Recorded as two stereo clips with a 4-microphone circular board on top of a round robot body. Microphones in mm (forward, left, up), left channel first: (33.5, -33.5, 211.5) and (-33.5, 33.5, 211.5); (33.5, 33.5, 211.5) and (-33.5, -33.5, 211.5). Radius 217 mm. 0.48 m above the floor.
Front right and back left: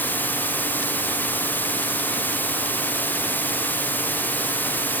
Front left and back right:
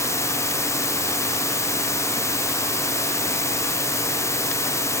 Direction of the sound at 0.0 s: 10° left.